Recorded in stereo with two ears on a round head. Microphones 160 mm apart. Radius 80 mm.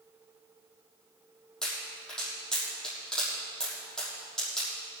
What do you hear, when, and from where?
1.6 s a pop: 5° left (ahead or behind), 6 m